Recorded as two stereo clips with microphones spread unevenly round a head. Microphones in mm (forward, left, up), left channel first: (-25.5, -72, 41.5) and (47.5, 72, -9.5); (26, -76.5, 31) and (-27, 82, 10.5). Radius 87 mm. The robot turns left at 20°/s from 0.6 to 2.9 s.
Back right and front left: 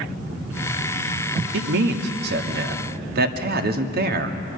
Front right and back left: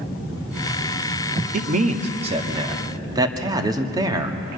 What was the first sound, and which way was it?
A man speaking, 65° left.